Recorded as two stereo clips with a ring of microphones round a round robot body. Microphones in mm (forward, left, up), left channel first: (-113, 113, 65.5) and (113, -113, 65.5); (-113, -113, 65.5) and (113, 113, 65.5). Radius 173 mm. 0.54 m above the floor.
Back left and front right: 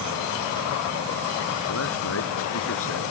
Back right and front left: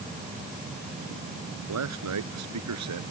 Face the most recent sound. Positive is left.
turn(degrees=85)